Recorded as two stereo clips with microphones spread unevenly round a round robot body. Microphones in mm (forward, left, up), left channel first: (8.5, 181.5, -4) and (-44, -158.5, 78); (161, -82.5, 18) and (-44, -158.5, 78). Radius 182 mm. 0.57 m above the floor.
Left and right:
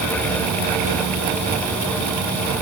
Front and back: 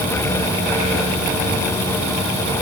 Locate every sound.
Only background noise.